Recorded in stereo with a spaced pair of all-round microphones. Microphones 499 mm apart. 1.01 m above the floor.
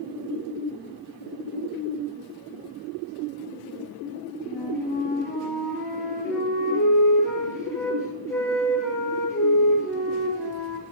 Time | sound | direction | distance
4.4 | a flute | 5° left (ahead or behind) | 10 m